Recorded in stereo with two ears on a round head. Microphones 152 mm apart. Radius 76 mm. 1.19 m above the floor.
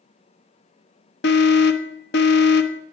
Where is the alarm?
65° left (ahead or behind), 1.2 m.